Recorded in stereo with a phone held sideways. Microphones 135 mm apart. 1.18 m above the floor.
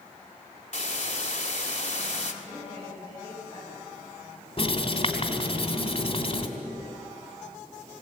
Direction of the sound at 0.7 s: 60° left (ahead or behind).